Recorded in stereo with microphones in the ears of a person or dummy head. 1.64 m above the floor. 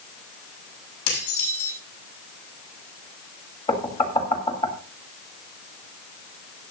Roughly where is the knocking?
Left.